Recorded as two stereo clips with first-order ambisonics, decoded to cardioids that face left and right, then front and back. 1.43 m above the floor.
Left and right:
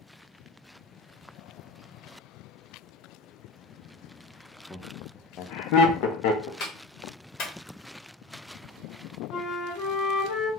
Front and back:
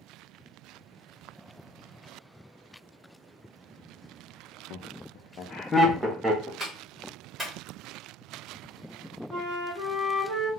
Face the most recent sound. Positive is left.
turn(degrees=145)